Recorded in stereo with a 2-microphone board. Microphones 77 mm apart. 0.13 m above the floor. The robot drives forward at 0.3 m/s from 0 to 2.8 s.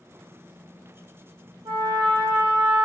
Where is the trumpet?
70° right (ahead or behind), 0.7 m; by 2.9 s 50° right (ahead or behind), 0.9 m.